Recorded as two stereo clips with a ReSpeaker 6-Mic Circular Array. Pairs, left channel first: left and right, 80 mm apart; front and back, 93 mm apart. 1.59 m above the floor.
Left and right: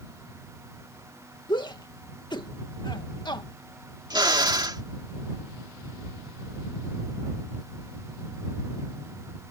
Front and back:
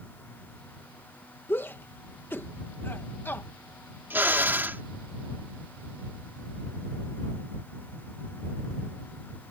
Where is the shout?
65° left.